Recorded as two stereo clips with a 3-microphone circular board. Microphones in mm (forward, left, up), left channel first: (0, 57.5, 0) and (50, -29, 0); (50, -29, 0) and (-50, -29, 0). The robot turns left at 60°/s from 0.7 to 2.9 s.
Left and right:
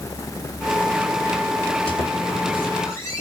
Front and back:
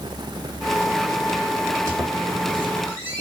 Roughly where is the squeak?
Behind left.